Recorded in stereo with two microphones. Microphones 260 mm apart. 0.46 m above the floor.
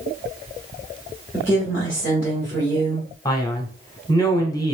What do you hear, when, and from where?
1.3 s a woman speaking: 10° left (ahead or behind), 1.6 m
3.2 s a man speaking: 15° left (ahead or behind), 0.9 m